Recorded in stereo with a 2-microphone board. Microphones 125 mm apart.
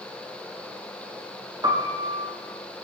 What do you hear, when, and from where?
1.6 s a piano: 35° right (ahead or behind), 2.5 m